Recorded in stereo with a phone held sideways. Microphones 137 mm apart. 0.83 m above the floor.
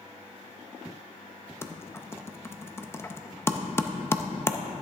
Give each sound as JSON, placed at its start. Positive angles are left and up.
{"t": 1.6, "sound": "typing on a keyboard", "side_deg": 20, "distance_m": 0.5}